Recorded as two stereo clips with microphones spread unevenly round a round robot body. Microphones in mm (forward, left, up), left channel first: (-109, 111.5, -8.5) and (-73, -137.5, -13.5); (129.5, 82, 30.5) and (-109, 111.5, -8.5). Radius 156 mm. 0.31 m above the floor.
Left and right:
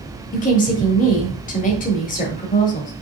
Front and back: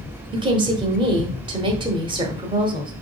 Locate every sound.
0.3 s a woman speaking: 135° left, 1.3 m